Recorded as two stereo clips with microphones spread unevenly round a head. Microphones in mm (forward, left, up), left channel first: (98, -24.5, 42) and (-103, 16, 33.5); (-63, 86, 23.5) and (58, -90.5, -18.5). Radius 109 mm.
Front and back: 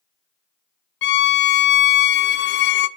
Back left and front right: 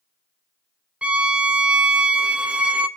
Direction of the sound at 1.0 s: 30° left.